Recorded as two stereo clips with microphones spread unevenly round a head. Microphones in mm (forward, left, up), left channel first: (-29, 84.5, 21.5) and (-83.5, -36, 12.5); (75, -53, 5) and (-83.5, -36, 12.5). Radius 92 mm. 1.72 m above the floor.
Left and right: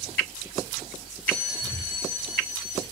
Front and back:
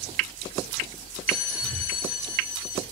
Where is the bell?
15° left, 4.5 m.